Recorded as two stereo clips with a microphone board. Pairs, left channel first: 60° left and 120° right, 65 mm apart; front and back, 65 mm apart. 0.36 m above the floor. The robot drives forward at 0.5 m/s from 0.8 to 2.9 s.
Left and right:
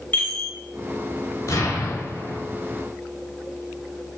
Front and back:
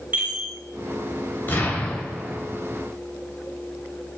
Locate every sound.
0.1 s a chime: 125° left, 0.8 m
1.5 s an explosion: 50° left, 0.7 m; by 2.4 s 100° left, 0.6 m